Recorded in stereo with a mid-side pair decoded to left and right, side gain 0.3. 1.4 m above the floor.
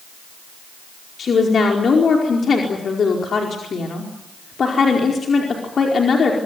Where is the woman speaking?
65° left, 4.5 m.